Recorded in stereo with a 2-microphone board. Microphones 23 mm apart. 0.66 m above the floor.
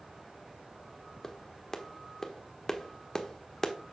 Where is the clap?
20° left (ahead or behind), 1.1 m.